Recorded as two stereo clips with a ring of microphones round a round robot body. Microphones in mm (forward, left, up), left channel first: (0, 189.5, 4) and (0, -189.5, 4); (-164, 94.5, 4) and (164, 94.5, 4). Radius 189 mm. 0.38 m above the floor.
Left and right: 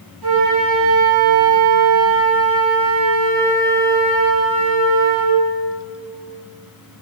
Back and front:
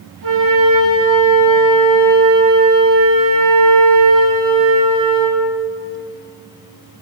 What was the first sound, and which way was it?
A flute, 55° right.